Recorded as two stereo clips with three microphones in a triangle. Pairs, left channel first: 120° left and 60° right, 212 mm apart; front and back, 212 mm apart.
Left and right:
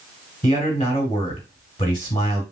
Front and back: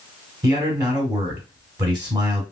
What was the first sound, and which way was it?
A man speaking, 120° left.